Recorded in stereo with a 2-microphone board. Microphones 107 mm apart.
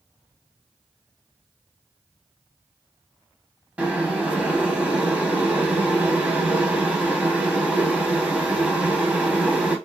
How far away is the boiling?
About 0.8 m.